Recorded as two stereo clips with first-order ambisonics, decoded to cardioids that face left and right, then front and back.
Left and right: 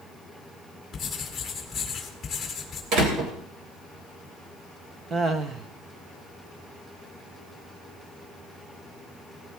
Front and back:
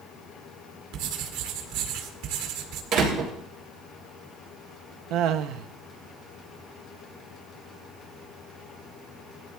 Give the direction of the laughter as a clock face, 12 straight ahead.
5 o'clock.